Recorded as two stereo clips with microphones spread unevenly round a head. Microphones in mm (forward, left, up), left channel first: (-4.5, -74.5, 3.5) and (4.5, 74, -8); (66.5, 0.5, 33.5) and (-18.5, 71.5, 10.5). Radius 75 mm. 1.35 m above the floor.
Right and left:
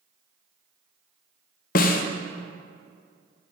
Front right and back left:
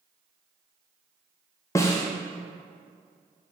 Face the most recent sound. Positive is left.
turn(degrees=-100)